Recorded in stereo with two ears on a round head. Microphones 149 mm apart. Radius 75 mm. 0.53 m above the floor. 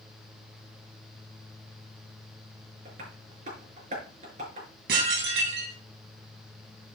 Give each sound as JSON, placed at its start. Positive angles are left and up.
{"t": 2.9, "sound": "tapping", "side_deg": -45, "distance_m": 5.0}
{"t": 4.9, "sound": "dishes clattering", "side_deg": -70, "distance_m": 3.0}